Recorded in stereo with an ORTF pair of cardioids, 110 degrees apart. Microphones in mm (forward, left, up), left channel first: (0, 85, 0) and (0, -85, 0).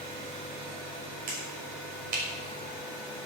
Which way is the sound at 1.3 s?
60° right.